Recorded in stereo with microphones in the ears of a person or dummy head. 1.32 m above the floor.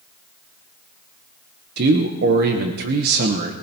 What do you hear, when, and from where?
1.8 s a man speaking: 60° right (ahead or behind), 1.1 m